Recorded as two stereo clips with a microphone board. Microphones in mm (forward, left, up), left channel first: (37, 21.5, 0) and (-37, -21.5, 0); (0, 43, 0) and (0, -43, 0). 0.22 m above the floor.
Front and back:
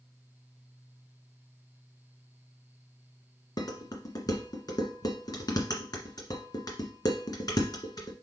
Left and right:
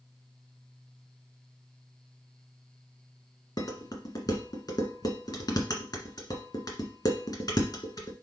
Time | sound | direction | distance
3.6 | dishes clattering | 60° left | 1.5 m